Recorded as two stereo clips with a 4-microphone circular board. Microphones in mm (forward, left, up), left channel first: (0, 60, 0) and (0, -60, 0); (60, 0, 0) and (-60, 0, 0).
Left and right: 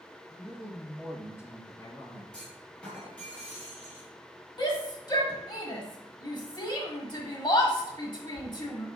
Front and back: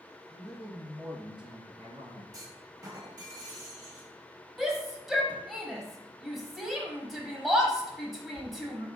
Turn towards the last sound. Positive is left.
turn(degrees=95)